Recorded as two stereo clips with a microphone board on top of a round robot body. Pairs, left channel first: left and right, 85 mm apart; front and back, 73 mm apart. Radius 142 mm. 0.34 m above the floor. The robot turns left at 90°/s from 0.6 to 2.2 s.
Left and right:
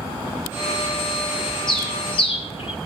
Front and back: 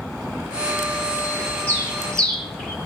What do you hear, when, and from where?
1.7 s a bird: 125° left, 5.5 m; by 2.8 s 80° left, 5.5 m